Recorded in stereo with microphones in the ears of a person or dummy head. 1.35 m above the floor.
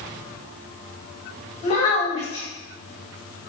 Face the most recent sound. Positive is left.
turn(degrees=35)  # may be behind; listen again after turning